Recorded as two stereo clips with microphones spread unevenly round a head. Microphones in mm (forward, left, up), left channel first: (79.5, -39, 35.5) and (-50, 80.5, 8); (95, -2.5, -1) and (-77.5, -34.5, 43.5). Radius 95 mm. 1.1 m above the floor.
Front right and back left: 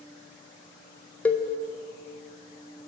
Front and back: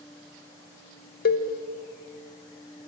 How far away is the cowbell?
About 0.6 m.